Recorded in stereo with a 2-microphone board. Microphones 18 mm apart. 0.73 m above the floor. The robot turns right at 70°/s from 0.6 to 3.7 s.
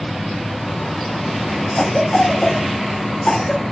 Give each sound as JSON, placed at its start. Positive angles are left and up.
{"t": 1.8, "sound": "a cough", "side_deg": 40, "distance_m": 1.9}